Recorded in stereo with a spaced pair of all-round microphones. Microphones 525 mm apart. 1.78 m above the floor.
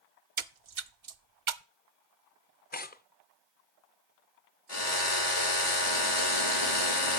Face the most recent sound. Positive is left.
turn(degrees=75)  # may be behind; listen again after turning